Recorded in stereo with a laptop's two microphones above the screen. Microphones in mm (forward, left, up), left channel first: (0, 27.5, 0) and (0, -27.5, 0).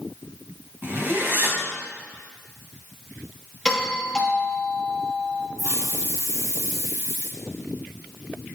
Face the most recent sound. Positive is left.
turn(degrees=-75)  # may be behind; listen again after turning